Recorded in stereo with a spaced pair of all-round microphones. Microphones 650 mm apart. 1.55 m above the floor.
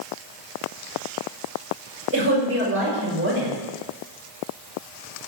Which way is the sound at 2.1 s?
20° right (ahead or behind).